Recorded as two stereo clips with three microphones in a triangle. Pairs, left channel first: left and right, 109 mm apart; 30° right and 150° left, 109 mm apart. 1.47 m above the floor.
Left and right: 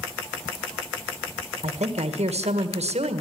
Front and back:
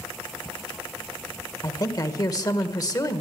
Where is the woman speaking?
85° right, 1.6 m.